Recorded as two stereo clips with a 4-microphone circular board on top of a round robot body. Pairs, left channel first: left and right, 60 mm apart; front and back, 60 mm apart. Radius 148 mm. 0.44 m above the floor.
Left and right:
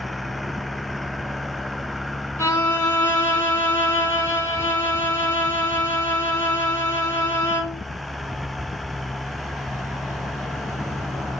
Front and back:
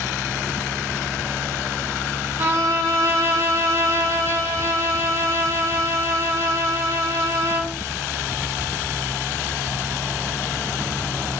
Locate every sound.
2.4 s a violin: 135° left, 1.1 m